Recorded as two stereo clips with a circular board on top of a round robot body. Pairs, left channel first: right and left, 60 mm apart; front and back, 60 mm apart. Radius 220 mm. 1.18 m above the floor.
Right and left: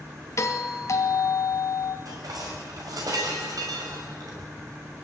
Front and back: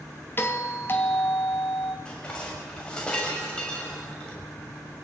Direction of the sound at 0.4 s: 55° right.